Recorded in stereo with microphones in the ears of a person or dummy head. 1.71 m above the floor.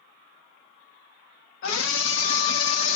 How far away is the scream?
About 1.0 m.